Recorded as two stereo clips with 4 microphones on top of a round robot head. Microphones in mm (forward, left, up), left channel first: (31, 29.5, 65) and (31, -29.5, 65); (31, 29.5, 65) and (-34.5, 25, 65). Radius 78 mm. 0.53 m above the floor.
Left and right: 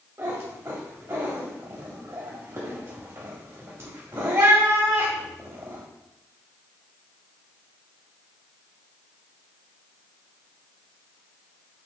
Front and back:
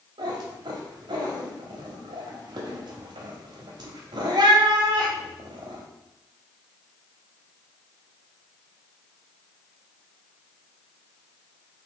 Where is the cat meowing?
150° right, 0.6 m.